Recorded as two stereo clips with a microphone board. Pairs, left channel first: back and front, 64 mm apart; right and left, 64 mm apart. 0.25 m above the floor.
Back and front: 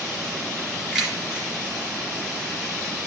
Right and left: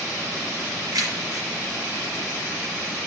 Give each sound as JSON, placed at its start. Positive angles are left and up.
{"t": 0.9, "sound": "keys jangling", "azimuth_deg": 80, "distance_m": 3.0}